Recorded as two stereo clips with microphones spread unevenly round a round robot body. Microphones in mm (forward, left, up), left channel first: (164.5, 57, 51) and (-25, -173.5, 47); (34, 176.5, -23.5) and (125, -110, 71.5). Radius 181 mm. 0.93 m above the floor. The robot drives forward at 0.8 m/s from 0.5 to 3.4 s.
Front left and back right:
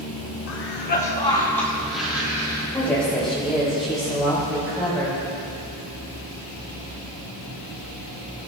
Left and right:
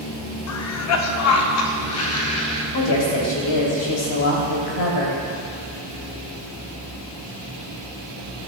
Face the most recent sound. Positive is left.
turn(degrees=140)